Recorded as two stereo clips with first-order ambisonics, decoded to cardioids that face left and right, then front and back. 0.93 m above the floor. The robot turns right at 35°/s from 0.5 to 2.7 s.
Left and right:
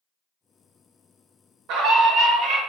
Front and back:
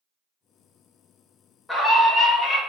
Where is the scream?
80° right, 0.8 m; by 2.6 s 50° right, 0.8 m.